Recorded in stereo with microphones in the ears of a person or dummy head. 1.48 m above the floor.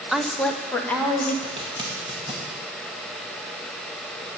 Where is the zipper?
30° right (ahead or behind), 2 m.